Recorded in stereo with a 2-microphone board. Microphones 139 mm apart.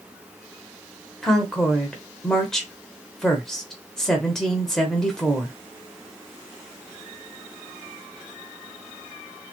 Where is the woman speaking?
5° left (ahead or behind), 1.0 m.